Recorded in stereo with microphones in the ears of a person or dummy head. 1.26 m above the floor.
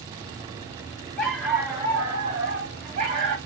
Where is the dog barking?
5° left (ahead or behind), 1.2 m; by 3.4 s 45° right (ahead or behind), 1.6 m.